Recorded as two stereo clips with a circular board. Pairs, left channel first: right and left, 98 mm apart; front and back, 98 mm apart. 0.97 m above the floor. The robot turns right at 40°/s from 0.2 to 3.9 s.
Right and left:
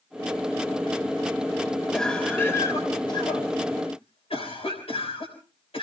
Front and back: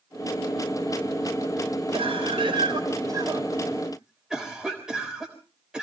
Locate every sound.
1.9 s a cough: 175° right, 3.5 m; by 5.8 s 95° right, 3.5 m